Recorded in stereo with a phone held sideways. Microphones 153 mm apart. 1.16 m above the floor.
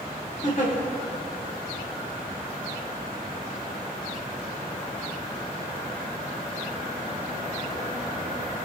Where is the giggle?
55° left (ahead or behind), 1.5 m.